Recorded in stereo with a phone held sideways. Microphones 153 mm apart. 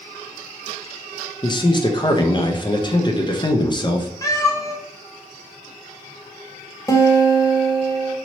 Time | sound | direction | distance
1.4 | a man speaking | 30° left (ahead or behind) | 0.5 m
4.2 | a cat meowing | 25° left (ahead or behind) | 0.6 m
6.9 | a guitar | 25° left (ahead or behind) | 0.6 m